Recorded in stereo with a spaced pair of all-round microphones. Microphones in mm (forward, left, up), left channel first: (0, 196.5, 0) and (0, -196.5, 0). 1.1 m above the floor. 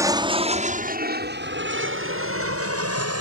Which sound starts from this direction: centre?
An aircraft, at 0.0 s.